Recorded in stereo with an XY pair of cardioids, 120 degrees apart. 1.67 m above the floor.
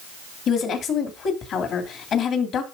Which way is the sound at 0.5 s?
60° left.